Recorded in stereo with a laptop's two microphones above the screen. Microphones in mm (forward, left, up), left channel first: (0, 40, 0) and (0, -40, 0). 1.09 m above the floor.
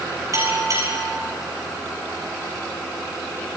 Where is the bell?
45° right (ahead or behind), 6.5 m.